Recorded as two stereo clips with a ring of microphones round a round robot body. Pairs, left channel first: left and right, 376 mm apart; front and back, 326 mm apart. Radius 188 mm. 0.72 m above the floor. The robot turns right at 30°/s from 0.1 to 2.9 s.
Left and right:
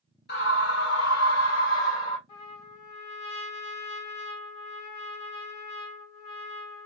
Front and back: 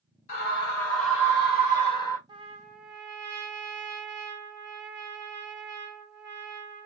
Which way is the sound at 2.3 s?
100° left.